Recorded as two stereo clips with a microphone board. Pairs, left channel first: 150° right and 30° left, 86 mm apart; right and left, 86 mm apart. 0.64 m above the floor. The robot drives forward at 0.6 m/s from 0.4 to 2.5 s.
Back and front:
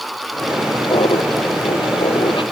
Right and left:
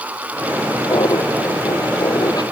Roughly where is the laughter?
Behind right.